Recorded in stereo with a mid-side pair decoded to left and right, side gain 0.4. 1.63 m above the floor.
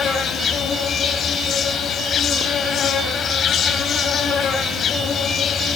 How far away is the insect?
About 4.5 m.